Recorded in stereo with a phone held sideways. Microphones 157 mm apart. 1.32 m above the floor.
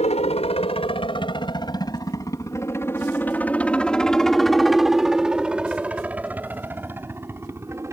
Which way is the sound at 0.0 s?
45° left (ahead or behind).